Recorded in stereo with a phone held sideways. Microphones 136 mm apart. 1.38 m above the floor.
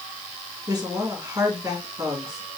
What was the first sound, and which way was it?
A woman speaking, 25° right (ahead or behind).